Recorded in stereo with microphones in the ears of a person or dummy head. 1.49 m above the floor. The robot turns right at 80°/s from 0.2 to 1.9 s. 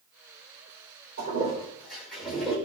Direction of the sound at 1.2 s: 60° right (ahead or behind).